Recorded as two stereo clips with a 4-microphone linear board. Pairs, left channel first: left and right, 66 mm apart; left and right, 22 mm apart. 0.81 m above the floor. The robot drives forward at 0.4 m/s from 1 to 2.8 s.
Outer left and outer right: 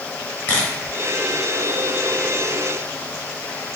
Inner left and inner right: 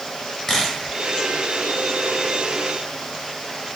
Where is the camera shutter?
25° left (ahead or behind), 1.6 m.